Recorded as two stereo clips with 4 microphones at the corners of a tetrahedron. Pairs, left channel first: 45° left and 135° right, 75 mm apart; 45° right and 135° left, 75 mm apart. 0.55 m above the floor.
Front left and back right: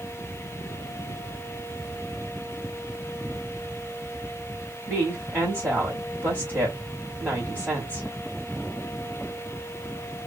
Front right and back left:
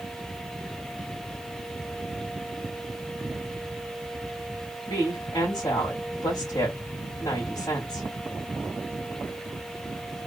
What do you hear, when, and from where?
4.9 s a woman speaking: 75° right, 3 m